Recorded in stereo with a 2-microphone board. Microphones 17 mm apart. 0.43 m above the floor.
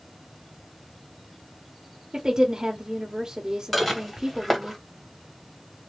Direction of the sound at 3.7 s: 5° left (ahead or behind).